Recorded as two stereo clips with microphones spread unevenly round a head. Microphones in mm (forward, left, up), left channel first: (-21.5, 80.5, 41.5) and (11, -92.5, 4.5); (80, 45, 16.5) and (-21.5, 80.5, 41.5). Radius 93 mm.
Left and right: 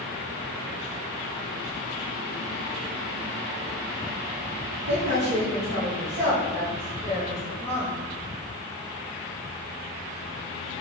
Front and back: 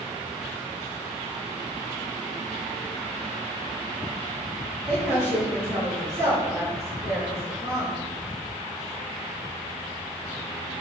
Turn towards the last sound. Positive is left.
turn(degrees=-135)